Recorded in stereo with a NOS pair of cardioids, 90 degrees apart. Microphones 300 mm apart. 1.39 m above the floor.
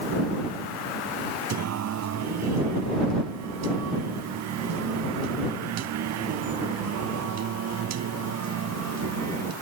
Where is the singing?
60° right.